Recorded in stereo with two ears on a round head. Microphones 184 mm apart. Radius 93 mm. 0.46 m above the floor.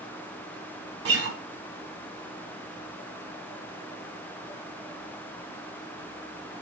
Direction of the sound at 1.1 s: 55° right (ahead or behind).